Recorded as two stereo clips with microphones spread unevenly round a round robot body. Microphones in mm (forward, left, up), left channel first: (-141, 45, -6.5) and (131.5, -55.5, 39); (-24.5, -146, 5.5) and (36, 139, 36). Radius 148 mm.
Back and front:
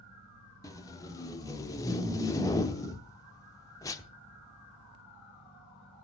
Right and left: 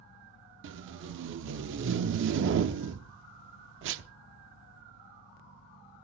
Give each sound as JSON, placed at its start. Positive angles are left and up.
{"t": 0.6, "sound": "tape being pulled", "azimuth_deg": 100, "distance_m": 0.9}